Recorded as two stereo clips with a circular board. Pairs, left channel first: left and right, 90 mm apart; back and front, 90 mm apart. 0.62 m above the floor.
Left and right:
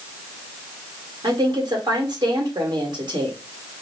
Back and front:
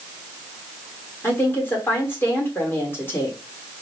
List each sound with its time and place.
1.2 s a woman speaking: 115° right, 1.4 m